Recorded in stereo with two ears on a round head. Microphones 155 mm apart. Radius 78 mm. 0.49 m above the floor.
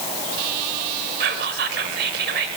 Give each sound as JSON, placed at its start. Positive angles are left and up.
{"t": 1.2, "sound": "whispering", "side_deg": -65, "distance_m": 1.7}